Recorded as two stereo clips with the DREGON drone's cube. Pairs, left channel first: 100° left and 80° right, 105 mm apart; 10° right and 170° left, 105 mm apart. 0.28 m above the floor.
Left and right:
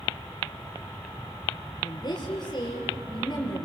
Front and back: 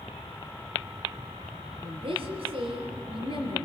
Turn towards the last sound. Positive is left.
turn(degrees=145)